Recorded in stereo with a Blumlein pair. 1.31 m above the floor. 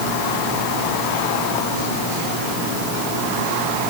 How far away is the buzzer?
I don't hear a buzzer.